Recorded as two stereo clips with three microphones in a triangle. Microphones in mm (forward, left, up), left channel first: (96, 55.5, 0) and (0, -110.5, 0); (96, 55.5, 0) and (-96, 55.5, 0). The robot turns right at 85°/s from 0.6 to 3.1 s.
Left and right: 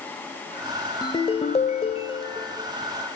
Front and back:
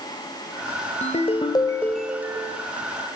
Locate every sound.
1.0 s a ringtone: 5° left, 1.0 m; by 2.6 s 140° left, 1.0 m